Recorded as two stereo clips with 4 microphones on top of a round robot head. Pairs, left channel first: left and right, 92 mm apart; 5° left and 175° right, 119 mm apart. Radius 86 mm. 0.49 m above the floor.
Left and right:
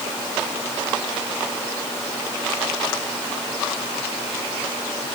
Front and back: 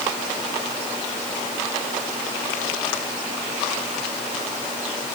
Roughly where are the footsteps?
No footsteps in this recording.